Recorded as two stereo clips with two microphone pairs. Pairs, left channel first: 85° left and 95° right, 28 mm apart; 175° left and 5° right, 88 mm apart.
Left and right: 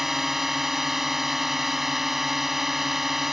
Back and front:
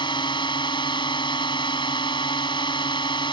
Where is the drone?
175° right.